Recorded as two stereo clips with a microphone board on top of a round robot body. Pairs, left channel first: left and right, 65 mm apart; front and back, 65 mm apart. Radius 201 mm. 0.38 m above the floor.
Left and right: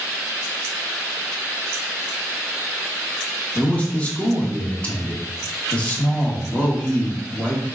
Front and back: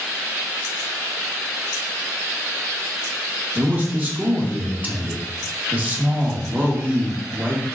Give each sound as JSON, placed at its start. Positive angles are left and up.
{"t": 3.5, "sound": "a man speaking", "azimuth_deg": 140, "distance_m": 1.6}